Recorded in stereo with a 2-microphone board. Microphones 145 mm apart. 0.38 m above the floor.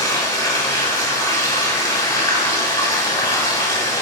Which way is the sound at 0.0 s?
20° left (ahead or behind).